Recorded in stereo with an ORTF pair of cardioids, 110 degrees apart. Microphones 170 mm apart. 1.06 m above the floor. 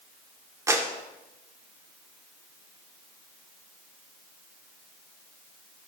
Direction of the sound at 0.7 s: 15° right.